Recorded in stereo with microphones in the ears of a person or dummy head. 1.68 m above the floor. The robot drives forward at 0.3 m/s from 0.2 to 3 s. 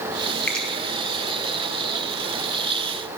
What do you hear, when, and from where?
0.5 s a finger snap: 5° left (ahead or behind), 2 m